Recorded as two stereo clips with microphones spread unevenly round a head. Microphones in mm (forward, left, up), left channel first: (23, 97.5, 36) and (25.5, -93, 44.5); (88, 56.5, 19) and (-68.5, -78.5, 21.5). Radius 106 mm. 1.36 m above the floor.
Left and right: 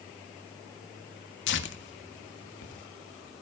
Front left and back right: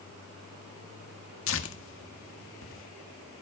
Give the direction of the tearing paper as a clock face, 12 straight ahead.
10 o'clock.